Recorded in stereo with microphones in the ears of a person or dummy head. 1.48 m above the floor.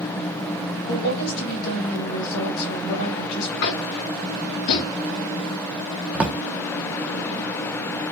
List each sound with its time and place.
0.9 s a woman speaking: 55° left (ahead or behind), 1.7 m
3.6 s tapping: 60° left (ahead or behind), 1.4 m
6.1 s a drawer: 5° right (ahead or behind), 0.7 m